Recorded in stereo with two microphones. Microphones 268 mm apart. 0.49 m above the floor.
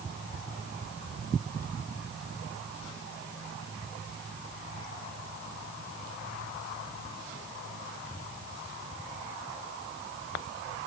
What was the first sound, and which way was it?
Only background noise.